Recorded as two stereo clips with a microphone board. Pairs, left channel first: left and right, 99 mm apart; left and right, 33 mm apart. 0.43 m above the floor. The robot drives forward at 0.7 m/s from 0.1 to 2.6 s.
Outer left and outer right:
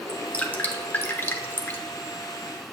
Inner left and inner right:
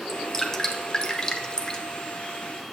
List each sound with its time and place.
0.1 s dripping: 15° left (ahead or behind), 1.1 m; by 1.8 s 20° left (ahead or behind), 0.8 m